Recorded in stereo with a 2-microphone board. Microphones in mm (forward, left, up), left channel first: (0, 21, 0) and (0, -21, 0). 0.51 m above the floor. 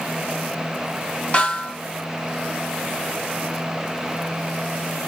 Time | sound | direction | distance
1.3 | a snare drum | 25° left (ahead or behind) | 3.5 m